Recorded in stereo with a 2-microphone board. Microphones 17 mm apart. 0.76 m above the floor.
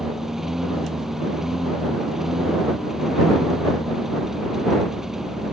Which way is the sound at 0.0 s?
20° right (ahead or behind).